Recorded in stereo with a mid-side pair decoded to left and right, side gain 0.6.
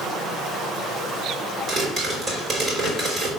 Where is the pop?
40° right, 3.5 m.